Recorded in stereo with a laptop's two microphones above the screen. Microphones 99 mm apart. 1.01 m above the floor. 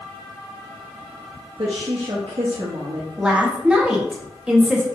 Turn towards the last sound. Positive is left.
turn(degrees=-10)  # may be behind; listen again after turning